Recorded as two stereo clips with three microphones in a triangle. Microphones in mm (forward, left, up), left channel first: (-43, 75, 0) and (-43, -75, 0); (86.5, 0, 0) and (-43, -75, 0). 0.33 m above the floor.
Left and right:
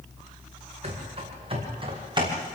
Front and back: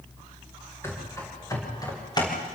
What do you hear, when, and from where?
0.8 s running footsteps: 45° right, 9 m; by 2.4 s 30° right, 7.5 m